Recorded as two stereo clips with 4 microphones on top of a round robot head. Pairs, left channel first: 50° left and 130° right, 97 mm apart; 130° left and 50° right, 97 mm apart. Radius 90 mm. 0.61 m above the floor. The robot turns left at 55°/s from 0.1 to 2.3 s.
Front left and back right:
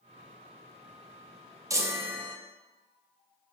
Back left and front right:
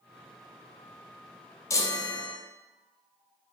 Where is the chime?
Straight behind, 0.6 m; by 2.4 s 150° left, 0.6 m.